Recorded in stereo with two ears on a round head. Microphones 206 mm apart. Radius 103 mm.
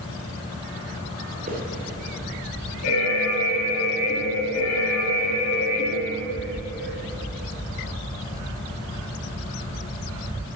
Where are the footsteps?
35° right (ahead or behind), 4.5 m.